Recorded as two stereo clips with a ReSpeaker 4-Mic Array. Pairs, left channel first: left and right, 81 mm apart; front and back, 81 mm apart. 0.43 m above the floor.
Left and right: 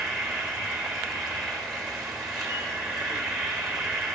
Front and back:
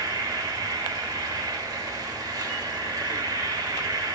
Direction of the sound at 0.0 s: 175° left.